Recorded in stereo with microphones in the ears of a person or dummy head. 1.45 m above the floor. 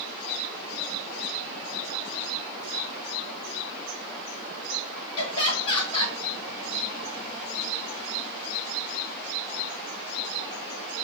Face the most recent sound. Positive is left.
turn(degrees=35)  # may be behind; listen again after turning